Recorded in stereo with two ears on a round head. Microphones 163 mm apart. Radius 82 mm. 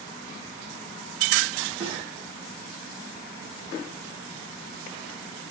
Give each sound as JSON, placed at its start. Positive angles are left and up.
{"t": 1.8, "sound": "a snare drum", "side_deg": -25, "distance_m": 7.0}